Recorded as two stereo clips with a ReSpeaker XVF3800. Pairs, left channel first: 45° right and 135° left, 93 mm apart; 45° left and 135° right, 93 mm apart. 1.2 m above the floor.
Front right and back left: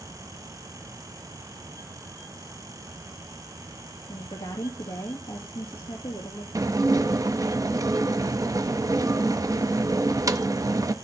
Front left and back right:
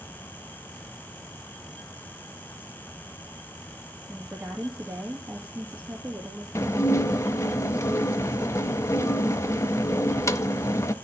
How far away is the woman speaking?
About 2.5 m.